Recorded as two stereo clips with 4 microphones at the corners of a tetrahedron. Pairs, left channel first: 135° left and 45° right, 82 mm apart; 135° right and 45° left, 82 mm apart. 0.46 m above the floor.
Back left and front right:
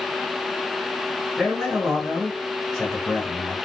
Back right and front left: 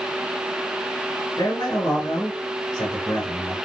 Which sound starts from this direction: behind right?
A man speaking, at 1.4 s.